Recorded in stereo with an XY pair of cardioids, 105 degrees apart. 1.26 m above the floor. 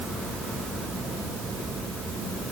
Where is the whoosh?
No whoosh in this recording.